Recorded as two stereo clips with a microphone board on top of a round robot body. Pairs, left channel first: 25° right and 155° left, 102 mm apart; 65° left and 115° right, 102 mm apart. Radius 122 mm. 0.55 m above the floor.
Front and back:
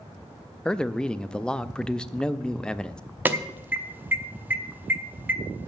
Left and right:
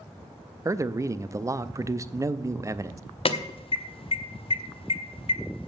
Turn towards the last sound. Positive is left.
turn(degrees=85)